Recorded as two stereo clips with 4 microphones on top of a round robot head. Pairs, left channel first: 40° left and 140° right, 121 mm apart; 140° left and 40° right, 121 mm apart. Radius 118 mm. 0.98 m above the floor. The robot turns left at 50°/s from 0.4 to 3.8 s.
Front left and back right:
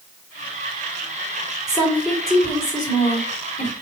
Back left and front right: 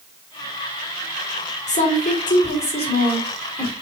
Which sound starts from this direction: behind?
A woman speaking, at 1.7 s.